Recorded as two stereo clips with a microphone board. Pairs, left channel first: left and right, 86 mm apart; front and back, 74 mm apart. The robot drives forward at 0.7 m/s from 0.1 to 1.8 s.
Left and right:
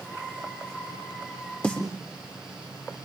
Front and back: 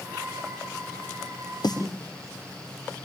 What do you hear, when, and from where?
1.6 s a snare drum: 15° left, 6.5 m